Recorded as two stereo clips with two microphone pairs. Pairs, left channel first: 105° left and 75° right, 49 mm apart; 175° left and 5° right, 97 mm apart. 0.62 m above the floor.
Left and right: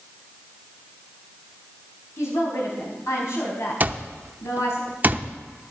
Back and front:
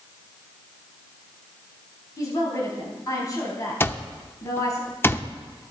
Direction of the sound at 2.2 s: 120° left.